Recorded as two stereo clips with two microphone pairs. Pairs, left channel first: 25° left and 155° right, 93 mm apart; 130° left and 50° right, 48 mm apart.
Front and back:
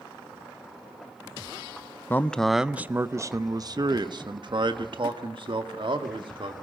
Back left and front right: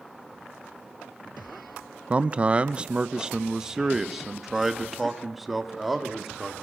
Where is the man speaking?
20° right, 0.5 m; by 6.5 s 140° right, 2 m.